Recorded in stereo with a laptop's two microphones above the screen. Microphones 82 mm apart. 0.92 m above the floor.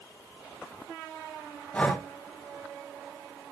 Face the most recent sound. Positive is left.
turn(degrees=15)  # may be behind; listen again after turning